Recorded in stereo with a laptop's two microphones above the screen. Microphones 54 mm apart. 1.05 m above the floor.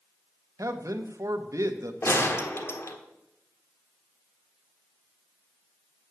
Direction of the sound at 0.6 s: 75° right (ahead or behind).